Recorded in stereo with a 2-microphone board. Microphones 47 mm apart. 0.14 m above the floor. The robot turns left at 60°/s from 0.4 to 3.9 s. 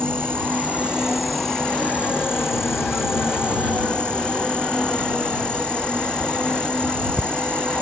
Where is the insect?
125° right; by 7.8 s 25° left.